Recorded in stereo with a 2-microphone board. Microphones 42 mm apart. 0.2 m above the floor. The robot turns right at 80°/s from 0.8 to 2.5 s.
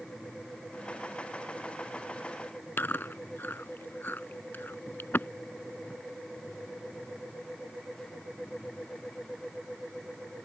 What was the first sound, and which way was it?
Chewing, 55° left (ahead or behind).